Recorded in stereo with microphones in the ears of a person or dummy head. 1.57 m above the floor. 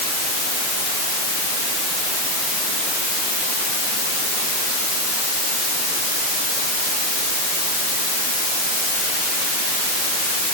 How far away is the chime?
I don't hear a chime.